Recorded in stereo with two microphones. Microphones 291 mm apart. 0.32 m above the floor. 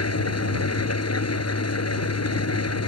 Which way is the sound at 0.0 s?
60° left (ahead or behind).